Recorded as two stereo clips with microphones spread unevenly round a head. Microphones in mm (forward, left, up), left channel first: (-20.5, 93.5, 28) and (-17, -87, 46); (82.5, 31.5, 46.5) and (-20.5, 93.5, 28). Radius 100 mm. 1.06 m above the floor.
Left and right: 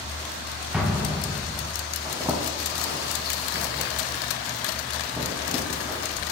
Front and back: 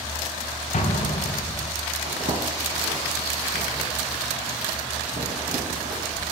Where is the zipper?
155° right, 1.6 m.